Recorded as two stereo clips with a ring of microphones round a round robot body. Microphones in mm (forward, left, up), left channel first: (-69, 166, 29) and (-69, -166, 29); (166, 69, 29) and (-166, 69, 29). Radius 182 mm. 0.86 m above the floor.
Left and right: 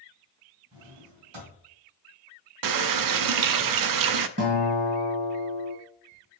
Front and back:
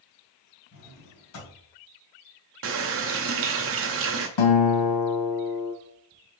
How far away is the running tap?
About 0.6 m.